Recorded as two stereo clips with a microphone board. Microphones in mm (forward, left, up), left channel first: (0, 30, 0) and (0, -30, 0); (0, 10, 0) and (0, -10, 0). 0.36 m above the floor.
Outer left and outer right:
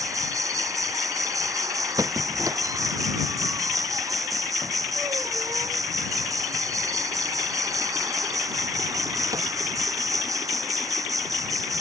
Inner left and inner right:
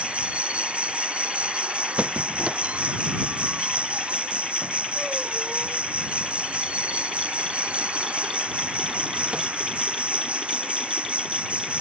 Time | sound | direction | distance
0.0 | an insect | 85° right | ?
2.0 | a squeak | 85° right | ?